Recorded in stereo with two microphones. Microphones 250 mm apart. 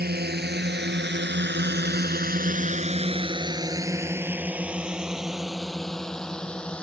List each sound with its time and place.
0.0 s a drone: 40° right (ahead or behind); by 6.8 s 5° left (ahead or behind)